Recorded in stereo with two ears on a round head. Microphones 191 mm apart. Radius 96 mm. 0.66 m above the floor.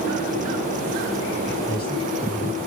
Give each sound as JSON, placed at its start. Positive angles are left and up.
{"t": 1.7, "sound": "a man speaking", "side_deg": -25, "distance_m": 5.0}